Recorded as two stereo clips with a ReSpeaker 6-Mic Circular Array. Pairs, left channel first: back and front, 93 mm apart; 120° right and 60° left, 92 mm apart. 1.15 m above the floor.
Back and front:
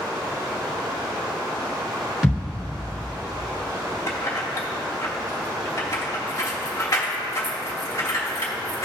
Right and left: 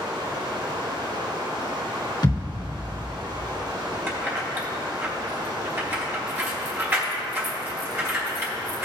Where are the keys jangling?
125° left, 1.9 m.